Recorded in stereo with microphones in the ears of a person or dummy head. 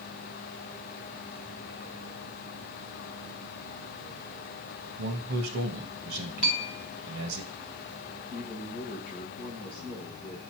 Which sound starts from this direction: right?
A man speaking, at 5.0 s.